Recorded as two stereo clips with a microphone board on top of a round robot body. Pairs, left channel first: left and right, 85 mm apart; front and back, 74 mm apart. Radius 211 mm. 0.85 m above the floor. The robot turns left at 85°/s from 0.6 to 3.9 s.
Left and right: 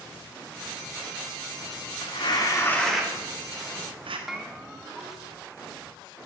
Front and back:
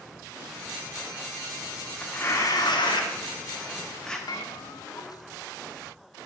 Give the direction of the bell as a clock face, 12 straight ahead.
12 o'clock.